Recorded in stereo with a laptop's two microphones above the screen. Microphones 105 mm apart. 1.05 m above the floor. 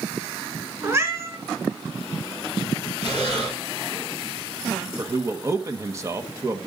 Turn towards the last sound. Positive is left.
turn(degrees=-30)  # may be behind; listen again after turning